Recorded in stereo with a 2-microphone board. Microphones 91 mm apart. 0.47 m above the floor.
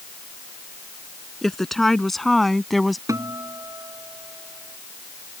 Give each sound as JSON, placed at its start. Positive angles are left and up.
{"t": 1.4, "sound": "a woman speaking", "side_deg": 5}
{"t": 3.1, "sound": "a guitar", "side_deg": -40}